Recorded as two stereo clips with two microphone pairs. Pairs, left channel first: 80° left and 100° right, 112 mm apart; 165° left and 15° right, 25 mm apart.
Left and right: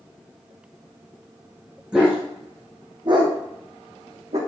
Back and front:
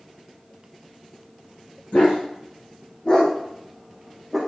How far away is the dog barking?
About 3.5 m.